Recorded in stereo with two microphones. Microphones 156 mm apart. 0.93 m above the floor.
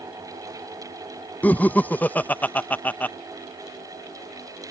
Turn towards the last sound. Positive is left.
turn(degrees=10)  # may be behind; listen again after turning